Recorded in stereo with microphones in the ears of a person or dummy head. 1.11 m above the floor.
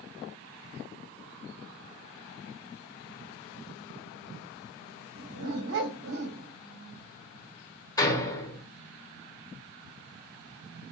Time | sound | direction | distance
5.2 | a dog barking | 60° right (ahead or behind) | 1.8 m
8.0 | a door slam | 25° left (ahead or behind) | 2.5 m